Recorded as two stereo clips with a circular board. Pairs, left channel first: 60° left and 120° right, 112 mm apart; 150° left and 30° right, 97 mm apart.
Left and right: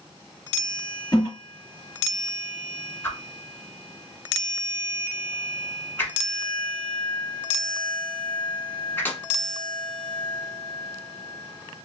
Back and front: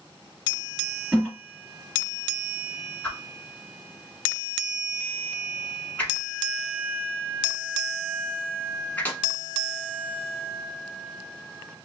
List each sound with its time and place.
1.1 s a toilet flushing: 50° left, 2 m
3.0 s a whoosh: 105° left, 0.9 m